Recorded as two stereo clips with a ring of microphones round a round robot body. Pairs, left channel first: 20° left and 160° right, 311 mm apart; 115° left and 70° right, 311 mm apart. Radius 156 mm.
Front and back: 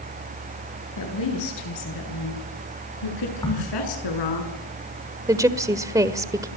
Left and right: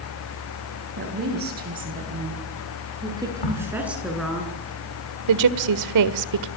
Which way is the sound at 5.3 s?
80° right.